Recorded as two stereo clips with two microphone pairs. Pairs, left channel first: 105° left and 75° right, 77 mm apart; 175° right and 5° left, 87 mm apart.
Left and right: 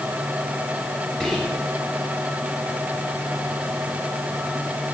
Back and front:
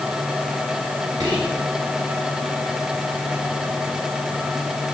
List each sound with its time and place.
1.2 s whispering: 25° left, 2.5 m